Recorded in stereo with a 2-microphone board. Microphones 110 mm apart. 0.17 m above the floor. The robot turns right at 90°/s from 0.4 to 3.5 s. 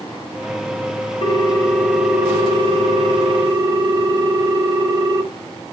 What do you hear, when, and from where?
1.2 s a ringtone: 110° left, 1.1 m; by 5.2 s 40° right, 1.1 m